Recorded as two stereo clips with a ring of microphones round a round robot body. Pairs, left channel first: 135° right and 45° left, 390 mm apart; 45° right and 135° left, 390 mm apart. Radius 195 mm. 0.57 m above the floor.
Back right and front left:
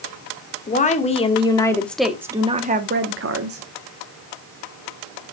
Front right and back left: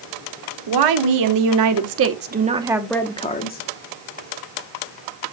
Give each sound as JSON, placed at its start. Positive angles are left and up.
{"t": 0.7, "sound": "a woman speaking", "azimuth_deg": 155, "distance_m": 1.7}